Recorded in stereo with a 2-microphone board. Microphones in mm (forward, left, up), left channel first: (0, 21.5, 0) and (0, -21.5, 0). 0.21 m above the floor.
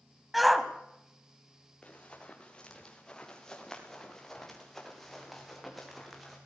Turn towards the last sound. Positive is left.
turn(degrees=-5)  # may be behind; listen again after turning